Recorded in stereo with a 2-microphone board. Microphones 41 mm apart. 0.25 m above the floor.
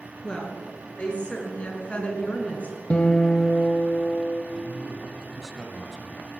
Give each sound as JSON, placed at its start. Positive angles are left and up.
{"t": 0.2, "sound": "a woman speaking", "side_deg": 25, "distance_m": 4.0}
{"t": 2.9, "sound": "a guitar", "side_deg": 35, "distance_m": 0.9}
{"t": 4.5, "sound": "a man speaking", "side_deg": 10, "distance_m": 1.8}